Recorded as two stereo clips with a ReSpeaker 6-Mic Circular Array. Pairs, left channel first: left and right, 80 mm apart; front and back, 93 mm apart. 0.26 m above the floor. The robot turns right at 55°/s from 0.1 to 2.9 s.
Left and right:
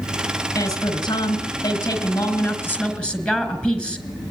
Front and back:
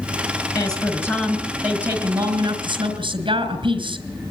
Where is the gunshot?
I don't hear a gunshot.